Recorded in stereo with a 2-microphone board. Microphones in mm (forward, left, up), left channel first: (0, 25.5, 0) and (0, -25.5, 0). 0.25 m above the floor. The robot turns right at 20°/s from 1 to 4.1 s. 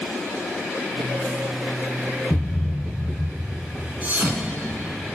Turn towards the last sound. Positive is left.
turn(degrees=-35)  # may be behind; listen again after turning